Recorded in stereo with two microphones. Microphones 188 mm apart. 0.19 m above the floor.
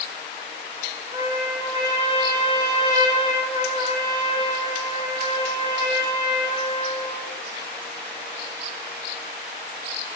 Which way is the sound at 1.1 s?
20° right (ahead or behind).